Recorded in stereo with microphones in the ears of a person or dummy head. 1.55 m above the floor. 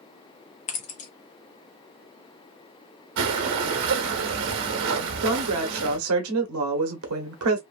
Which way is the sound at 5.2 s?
80° right.